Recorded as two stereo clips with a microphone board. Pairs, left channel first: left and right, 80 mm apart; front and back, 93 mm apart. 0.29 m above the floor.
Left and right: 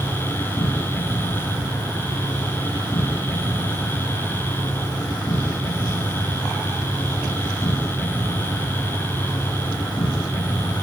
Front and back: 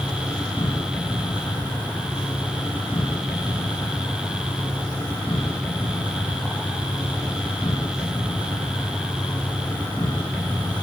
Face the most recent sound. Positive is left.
turn(degrees=70)